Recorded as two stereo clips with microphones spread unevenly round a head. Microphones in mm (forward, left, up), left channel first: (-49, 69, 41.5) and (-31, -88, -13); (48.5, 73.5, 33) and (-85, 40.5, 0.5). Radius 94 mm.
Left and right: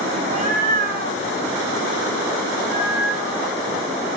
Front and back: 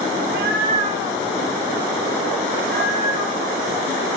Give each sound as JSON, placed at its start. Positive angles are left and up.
{"t": 0.2, "sound": "a cat meowing", "azimuth_deg": -135, "distance_m": 1.6}